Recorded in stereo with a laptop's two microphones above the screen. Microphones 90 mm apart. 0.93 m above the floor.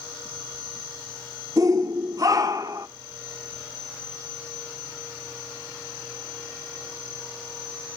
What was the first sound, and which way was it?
A shout, 40° right (ahead or behind).